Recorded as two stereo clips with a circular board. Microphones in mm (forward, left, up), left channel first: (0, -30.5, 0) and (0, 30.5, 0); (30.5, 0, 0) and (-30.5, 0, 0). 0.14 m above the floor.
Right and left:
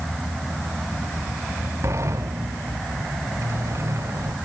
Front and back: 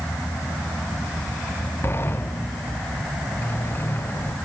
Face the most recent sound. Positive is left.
turn(degrees=50)